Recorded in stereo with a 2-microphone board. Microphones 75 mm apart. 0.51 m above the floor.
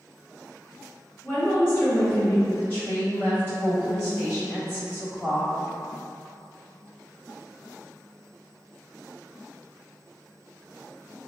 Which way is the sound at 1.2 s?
30° left (ahead or behind).